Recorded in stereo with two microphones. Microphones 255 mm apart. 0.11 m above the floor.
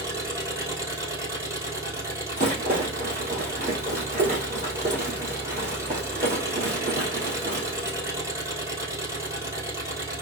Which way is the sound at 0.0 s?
10° right (ahead or behind).